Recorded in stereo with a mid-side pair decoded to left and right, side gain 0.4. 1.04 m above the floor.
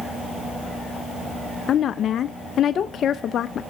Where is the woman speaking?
65° left, 0.7 m.